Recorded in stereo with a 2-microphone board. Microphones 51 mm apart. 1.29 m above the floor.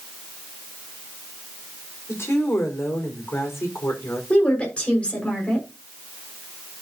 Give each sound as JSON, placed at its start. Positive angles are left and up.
{"t": 2.1, "sound": "a woman speaking", "side_deg": 60, "distance_m": 4.5}
{"t": 4.3, "sound": "a woman speaking", "side_deg": 25, "distance_m": 5.5}